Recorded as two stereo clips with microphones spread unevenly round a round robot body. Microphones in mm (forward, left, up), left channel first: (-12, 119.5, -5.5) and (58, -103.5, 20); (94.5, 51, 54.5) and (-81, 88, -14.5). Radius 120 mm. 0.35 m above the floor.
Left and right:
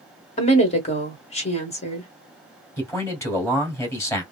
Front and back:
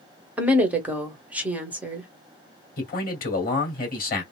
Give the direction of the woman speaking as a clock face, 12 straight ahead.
8 o'clock.